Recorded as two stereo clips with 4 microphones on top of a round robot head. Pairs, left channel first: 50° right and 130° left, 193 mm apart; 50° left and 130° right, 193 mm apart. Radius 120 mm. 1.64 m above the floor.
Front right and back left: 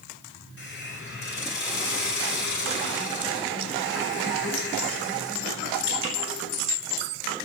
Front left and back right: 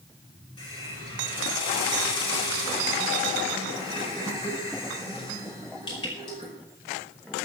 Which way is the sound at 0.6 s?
20° right.